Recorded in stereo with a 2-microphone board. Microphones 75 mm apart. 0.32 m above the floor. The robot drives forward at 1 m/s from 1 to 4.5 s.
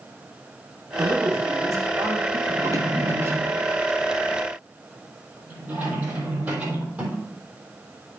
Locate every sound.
1.0 s a man speaking: 45° right (ahead or behind), 2.5 m; by 2.4 s 50° right (ahead or behind), 2.5 m
2.5 s a drawer: 55° right (ahead or behind), 1.2 m; by 7.2 s 20° right (ahead or behind), 3 m